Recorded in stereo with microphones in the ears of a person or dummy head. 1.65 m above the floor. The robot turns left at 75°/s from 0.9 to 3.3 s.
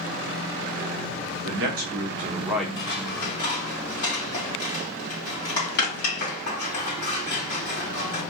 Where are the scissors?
60° left (ahead or behind), 3 m; by 8.2 s 65° left (ahead or behind), 3 m.